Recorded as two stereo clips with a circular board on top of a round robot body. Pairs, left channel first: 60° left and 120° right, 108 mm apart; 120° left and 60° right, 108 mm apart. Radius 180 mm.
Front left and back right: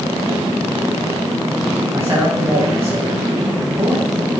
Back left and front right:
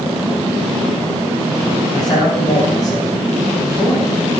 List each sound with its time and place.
1.9 s a man speaking: 175° left, 6 m